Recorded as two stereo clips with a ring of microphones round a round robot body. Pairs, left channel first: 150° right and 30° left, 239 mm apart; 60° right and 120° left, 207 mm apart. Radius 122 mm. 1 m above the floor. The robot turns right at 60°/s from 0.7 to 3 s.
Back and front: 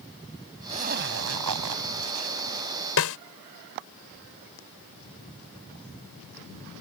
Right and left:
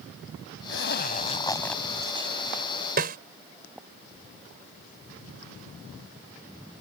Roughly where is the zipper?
Ahead right.